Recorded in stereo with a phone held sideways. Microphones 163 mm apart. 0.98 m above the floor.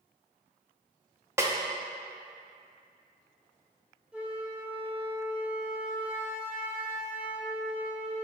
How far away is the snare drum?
About 0.5 m.